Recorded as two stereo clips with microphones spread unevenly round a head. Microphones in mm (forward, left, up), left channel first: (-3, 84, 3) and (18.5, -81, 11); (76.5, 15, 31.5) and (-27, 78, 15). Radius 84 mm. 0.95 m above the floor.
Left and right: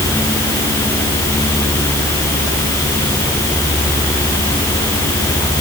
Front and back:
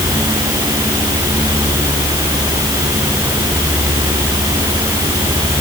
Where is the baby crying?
No baby crying in this recording.